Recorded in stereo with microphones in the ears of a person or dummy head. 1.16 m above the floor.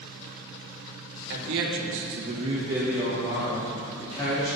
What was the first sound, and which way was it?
A man speaking, 65° right (ahead or behind).